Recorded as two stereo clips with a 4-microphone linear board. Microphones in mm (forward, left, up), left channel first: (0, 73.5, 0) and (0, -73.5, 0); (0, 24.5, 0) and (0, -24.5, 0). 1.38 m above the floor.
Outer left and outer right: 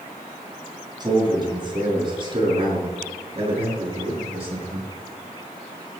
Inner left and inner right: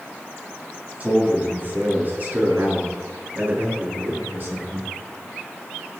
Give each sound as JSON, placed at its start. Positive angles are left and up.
{"t": 1.0, "sound": "a man speaking", "side_deg": -30, "distance_m": 6.5}